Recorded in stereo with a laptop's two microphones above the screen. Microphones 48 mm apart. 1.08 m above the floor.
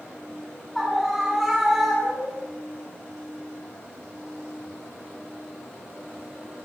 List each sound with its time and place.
0.8 s a scream: 5° left (ahead or behind), 9.5 m; by 2.5 s 5° right (ahead or behind), 10 m